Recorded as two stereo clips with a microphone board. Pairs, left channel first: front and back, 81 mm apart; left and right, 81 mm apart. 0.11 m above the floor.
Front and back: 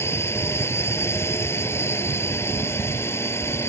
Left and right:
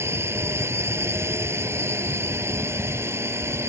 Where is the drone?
45° right.